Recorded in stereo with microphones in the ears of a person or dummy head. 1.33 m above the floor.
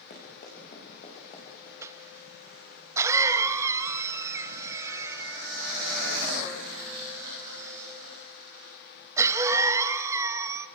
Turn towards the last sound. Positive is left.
turn(degrees=-15)  # may be behind; listen again after turning